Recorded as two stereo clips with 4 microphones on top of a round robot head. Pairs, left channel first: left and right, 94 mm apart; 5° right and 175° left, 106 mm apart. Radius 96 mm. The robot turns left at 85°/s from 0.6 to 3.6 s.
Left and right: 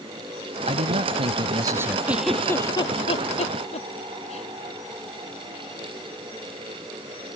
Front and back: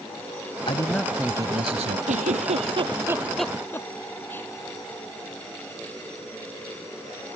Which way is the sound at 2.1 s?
165° right.